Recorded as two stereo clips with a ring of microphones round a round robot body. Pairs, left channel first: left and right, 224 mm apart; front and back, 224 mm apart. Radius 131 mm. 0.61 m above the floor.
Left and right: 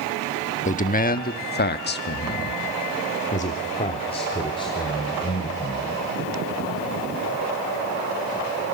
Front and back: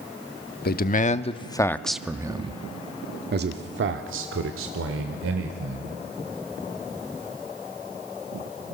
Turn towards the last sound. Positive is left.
turn(degrees=165)